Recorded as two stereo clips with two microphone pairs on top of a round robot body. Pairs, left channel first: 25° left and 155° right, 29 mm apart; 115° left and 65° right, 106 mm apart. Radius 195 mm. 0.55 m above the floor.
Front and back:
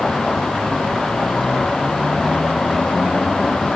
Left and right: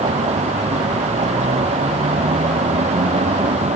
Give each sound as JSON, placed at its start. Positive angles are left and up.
{"t": 0.0, "sound": "a vehicle", "azimuth_deg": -45}